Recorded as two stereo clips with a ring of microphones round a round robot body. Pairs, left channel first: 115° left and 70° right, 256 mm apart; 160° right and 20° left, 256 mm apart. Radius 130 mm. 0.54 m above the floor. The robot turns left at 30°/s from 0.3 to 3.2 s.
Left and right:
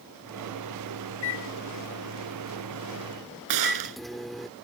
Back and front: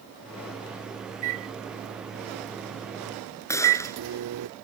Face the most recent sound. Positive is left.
turn(degrees=-80)